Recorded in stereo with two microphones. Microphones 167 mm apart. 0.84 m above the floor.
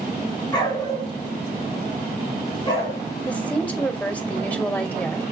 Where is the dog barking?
25° left (ahead or behind), 3.5 m.